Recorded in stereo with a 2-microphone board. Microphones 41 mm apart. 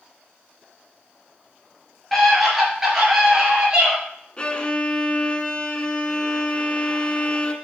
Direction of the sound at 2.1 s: 5° left (ahead or behind).